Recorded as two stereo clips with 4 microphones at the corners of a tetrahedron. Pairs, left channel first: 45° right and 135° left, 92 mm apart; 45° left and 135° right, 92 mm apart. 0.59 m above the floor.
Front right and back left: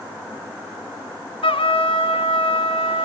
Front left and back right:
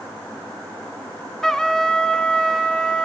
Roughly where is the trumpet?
Ahead right.